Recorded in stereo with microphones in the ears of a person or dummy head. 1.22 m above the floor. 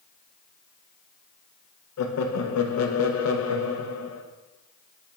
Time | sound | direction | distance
2.0 | laughter | 80° left | 1.0 m